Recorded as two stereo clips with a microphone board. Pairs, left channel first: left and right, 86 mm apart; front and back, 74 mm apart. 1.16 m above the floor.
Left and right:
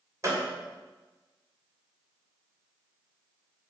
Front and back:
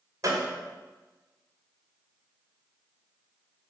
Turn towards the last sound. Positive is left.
turn(degrees=-140)